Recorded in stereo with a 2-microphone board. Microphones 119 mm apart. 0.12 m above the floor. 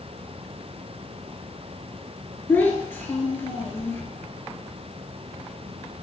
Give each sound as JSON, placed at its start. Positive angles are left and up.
{"t": 2.5, "sound": "a child speaking", "side_deg": 15, "distance_m": 1.7}